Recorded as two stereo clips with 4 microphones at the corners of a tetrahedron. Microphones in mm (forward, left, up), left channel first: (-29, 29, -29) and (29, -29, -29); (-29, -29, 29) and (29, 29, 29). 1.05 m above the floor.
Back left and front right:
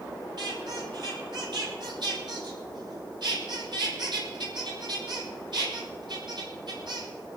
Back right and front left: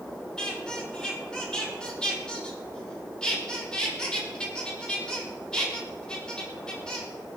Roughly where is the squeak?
Ahead right.